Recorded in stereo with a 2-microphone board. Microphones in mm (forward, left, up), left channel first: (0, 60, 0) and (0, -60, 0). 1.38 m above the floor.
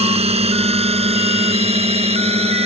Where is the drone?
60° right (ahead or behind).